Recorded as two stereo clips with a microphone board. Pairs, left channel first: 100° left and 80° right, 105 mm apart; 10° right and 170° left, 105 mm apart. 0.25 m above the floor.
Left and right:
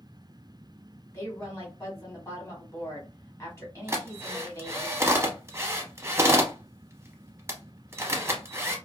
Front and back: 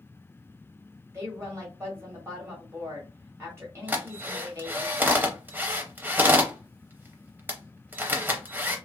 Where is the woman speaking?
135° left, 1.4 m.